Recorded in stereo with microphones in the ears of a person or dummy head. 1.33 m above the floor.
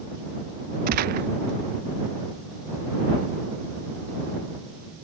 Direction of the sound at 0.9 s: 45° right (ahead or behind).